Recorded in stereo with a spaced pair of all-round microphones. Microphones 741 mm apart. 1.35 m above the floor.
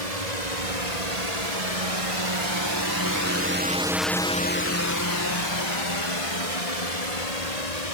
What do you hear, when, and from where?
0.0 s a drone: 65° right (ahead or behind); by 8.0 s 60° left (ahead or behind)